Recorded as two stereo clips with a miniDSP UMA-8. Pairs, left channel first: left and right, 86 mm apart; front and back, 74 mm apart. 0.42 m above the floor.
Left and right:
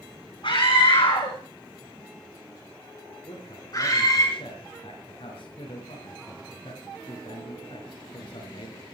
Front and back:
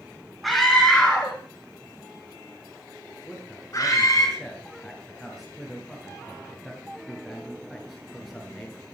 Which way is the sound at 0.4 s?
90° left.